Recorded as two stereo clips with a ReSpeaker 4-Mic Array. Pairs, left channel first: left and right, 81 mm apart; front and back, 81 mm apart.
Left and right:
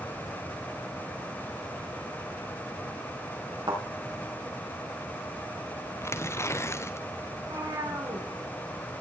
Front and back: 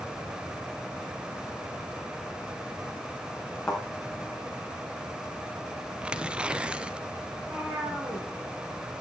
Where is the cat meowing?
110° right, 5 m.